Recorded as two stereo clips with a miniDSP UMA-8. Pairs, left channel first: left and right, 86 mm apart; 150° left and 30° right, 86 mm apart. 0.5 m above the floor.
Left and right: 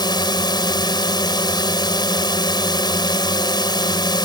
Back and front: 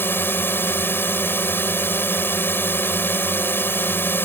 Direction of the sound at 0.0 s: 90° left.